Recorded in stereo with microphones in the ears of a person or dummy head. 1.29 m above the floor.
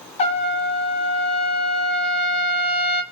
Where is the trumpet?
20° left (ahead or behind), 0.5 m.